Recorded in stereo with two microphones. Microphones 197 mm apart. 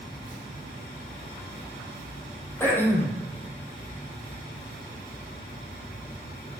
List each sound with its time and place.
2.6 s throat clearing: 10° left (ahead or behind), 3.5 m